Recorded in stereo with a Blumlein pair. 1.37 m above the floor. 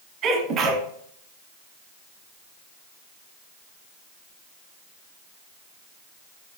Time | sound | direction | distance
0.2 | a sneeze | 30° right | 1.2 m